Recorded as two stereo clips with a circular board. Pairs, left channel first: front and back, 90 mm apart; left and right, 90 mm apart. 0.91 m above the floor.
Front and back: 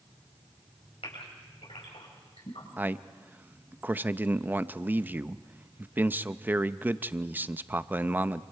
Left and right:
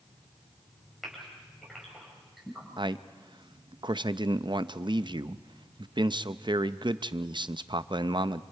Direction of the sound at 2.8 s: 110° right.